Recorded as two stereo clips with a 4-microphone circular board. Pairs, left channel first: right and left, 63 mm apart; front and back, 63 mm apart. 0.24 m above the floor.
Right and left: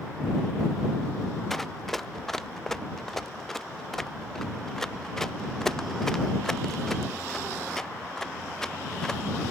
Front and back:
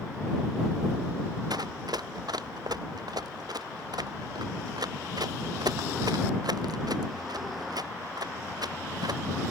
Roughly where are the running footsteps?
Behind.